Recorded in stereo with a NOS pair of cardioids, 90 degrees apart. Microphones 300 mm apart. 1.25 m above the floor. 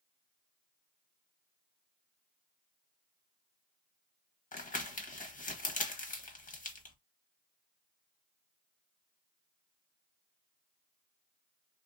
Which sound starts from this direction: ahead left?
Crumpling, at 4.5 s.